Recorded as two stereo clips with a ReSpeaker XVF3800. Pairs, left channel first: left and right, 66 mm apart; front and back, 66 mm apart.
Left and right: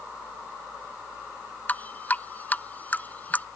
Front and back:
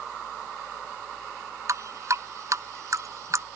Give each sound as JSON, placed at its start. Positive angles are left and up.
{"t": 1.7, "sound": "dripping", "azimuth_deg": 150}